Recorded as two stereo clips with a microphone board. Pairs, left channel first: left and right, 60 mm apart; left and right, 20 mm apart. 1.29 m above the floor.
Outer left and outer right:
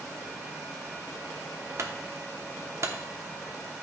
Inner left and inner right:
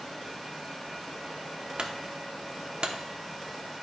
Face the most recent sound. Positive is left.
turn(degrees=-50)  # may be behind; listen again after turning